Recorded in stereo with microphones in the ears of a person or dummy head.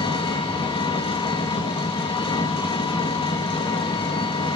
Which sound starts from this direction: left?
An engine running, at 0.0 s.